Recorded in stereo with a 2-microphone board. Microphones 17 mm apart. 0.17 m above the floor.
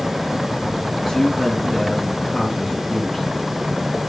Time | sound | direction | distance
1.1 | a man speaking | 35° left (ahead or behind) | 2 m